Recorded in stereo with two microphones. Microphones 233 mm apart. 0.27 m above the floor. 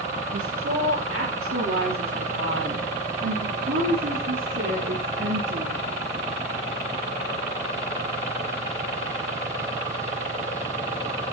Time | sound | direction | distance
0.3 | a woman speaking | 75° right (ahead or behind) | 7.5 m